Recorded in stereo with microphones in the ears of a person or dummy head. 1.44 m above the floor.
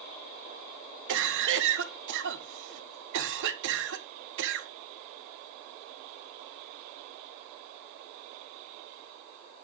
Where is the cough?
70° right (ahead or behind), 1.7 m.